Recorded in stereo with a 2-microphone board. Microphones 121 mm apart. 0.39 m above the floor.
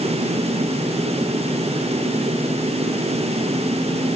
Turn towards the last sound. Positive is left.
No sound to turn to.